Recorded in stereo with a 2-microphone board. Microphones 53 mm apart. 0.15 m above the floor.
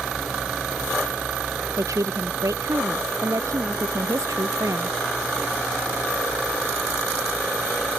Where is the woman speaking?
85° right; by 5.0 s 80° right.